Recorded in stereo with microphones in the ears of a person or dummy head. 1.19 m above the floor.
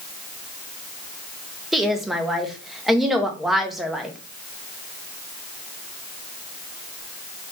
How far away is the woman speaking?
About 0.5 m.